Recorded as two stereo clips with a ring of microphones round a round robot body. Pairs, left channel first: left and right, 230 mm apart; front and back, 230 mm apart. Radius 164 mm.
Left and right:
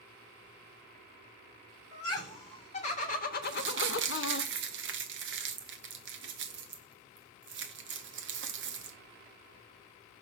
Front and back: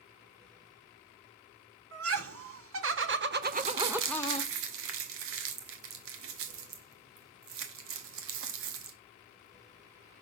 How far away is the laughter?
About 2.5 m.